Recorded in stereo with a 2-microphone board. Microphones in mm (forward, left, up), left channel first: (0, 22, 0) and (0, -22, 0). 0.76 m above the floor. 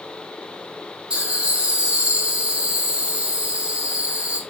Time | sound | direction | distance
1.1 | laughter | 25° right (ahead or behind) | 2.5 m